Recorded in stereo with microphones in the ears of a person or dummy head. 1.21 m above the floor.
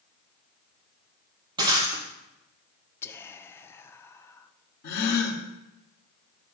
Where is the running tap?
No running tap in this recording.